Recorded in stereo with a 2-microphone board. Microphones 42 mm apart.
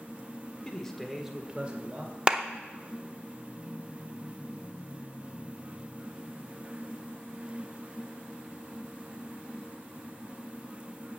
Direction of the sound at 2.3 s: 20° right (ahead or behind).